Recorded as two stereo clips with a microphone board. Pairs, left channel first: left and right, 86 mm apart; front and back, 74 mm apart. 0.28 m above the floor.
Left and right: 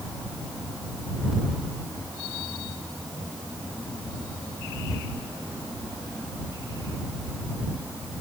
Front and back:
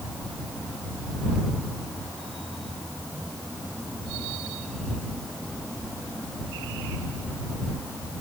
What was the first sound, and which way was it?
Only background noise.